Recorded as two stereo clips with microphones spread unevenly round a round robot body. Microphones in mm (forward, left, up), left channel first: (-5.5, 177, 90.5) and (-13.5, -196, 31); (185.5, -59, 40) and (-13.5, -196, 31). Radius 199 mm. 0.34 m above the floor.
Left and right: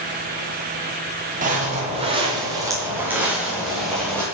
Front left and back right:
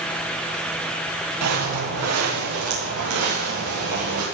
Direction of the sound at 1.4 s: 160° right.